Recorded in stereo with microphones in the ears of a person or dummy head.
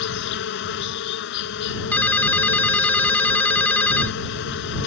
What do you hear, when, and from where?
0.0 s an insect: 75° left (ahead or behind)
1.9 s a ringtone: 10° left (ahead or behind)